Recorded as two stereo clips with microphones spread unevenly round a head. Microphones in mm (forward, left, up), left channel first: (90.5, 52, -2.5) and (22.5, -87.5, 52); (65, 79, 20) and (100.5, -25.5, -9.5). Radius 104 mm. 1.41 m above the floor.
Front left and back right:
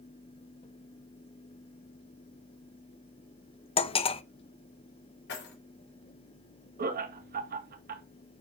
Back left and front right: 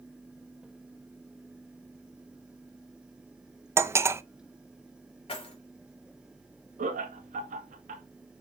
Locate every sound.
3.8 s cutlery clinking: 5° left, 0.6 m
5.3 s keys jangling: 80° left, 3.5 m
6.8 s laughter: 95° right, 1.9 m